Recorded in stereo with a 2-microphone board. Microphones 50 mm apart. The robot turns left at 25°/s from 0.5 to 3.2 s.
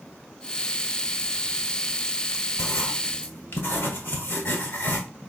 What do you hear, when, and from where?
2.6 s writing: 60° left (ahead or behind), 1.5 m; by 5.0 s 50° left (ahead or behind), 1.5 m